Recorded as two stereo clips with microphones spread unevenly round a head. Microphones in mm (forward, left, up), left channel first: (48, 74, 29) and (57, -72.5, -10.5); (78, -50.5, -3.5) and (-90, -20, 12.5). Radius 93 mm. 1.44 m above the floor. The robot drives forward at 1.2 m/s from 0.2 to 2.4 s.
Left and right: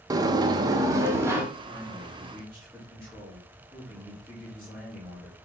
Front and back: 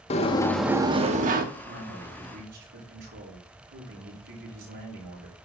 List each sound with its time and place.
0.1 s a sliding door: 15° right, 0.9 m; by 1.4 s 175° right, 1.4 m
1.6 s a man speaking: 170° right, 5.5 m